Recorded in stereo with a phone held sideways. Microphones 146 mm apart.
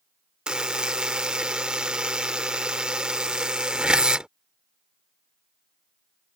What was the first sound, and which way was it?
A buzzer, 5° right (ahead or behind).